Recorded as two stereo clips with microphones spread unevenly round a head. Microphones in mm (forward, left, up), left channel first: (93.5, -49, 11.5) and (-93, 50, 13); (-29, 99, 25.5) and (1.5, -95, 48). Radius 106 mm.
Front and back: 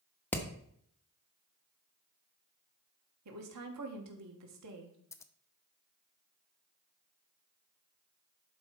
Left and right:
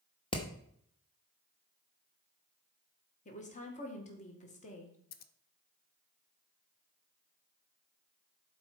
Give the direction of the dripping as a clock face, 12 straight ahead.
No dripping in this recording.